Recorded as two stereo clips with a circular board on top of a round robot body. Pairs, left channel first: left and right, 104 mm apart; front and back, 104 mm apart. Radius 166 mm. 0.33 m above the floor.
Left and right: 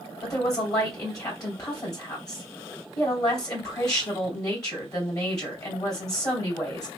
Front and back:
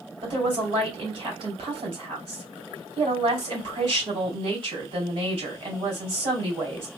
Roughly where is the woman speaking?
Behind left.